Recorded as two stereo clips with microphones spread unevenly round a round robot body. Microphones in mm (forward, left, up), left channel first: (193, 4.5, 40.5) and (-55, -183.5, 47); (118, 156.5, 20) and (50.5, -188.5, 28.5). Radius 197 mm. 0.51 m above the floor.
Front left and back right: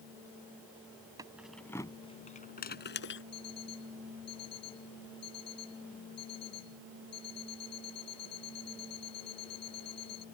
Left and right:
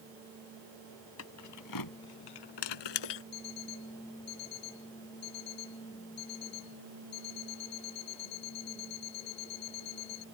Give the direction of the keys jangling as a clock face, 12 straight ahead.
7 o'clock.